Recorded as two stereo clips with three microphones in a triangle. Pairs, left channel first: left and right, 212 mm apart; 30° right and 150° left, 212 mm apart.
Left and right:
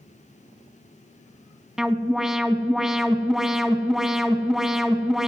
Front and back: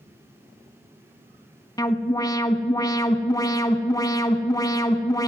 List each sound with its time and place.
1.8 s an alarm: 5° right, 0.7 m